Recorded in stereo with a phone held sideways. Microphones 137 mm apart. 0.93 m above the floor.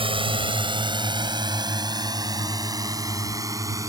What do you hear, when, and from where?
0.0 s a drone: 40° right (ahead or behind); by 3.9 s 25° right (ahead or behind)